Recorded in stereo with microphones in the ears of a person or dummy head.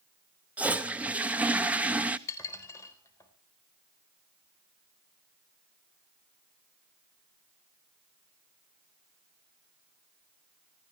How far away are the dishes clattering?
About 4 m.